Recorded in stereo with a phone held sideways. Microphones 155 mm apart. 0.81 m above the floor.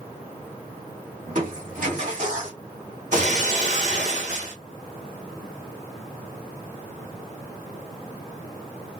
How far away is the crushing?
About 2 m.